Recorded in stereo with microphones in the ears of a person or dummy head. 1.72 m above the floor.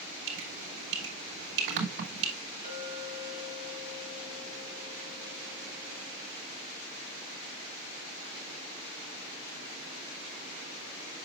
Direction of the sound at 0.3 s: 70° right (ahead or behind).